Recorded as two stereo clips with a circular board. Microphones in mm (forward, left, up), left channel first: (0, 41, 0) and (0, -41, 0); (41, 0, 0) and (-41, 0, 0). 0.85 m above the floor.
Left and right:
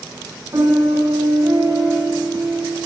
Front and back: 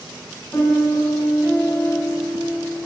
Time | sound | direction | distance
0.5 | a piano | 50° right | 7.5 m